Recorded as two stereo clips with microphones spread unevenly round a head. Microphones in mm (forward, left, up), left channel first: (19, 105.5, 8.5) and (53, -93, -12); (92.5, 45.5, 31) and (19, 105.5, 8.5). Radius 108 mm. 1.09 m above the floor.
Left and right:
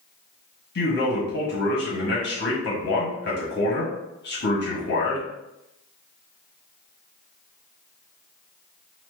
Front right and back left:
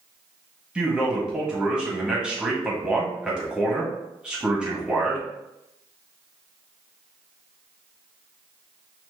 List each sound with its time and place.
0.8 s a man speaking: 60° left, 1.7 m